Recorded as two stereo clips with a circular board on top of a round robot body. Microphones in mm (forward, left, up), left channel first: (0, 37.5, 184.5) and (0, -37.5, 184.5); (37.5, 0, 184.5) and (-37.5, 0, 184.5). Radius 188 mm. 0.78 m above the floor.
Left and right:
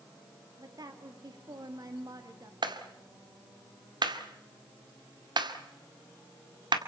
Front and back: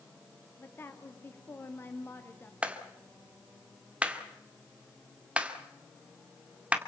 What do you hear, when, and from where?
0.6 s a woman speaking: 60° right, 2.0 m
2.6 s a clap: 105° right, 2 m